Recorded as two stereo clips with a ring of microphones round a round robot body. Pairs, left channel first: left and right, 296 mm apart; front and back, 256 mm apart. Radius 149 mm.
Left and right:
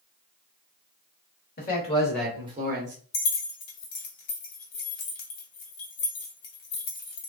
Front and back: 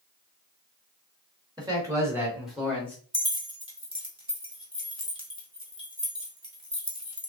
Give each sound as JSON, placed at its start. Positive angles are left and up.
{"t": 1.6, "sound": "a man speaking", "azimuth_deg": 120, "distance_m": 1.3}
{"t": 3.1, "sound": "keys jangling", "azimuth_deg": 110, "distance_m": 1.6}